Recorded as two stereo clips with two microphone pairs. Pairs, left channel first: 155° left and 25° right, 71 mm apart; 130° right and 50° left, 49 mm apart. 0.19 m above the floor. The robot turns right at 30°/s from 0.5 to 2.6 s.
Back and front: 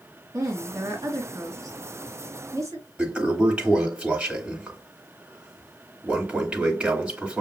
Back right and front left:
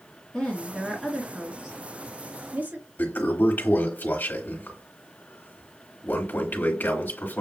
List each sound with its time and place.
0.3 s a woman speaking: 55° right, 2.5 m; by 2.8 s 10° left, 2.5 m
3.0 s a toilet flushing: 100° right, 2.5 m